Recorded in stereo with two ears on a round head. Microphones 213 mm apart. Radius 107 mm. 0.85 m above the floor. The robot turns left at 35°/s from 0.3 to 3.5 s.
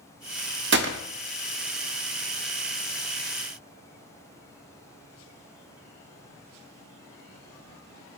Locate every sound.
0.7 s a gunshot: 45° right (ahead or behind), 0.6 m; by 1.0 s 55° right (ahead or behind), 0.6 m